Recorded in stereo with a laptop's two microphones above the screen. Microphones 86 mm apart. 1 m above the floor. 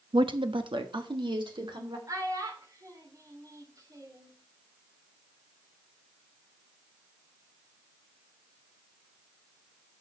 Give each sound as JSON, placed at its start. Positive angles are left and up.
{"t": 0.1, "sound": "a woman speaking", "side_deg": -70, "distance_m": 0.7}
{"t": 2.1, "sound": "a child speaking", "side_deg": -45, "distance_m": 2.0}